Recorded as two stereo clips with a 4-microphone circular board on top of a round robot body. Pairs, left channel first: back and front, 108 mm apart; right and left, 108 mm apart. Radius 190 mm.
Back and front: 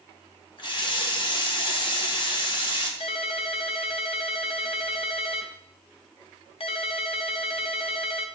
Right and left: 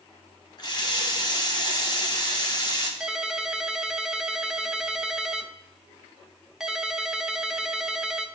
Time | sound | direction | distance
0.6 | a running tap | 140° right | 1.9 m
3.0 | a ringtone | 175° left | 1.1 m